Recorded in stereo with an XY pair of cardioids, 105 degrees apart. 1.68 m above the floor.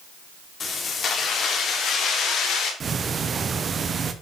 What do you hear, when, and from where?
0.6 s keys jangling: 45° left, 3.5 m; by 2.7 s 80° left, 4.5 m
2.8 s ticking: 40° right, 1.1 m